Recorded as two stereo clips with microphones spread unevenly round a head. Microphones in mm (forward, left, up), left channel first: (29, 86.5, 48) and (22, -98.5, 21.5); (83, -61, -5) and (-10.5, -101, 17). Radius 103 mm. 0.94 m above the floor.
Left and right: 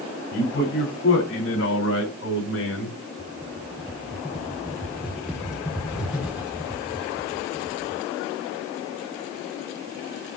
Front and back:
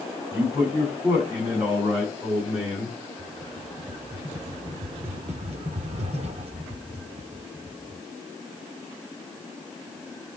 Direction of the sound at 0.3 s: 125° left.